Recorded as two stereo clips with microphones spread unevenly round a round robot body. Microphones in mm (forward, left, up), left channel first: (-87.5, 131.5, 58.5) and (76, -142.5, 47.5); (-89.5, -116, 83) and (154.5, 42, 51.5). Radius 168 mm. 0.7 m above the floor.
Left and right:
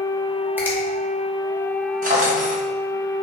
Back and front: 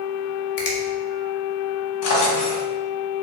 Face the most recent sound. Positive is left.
turn(degrees=-125)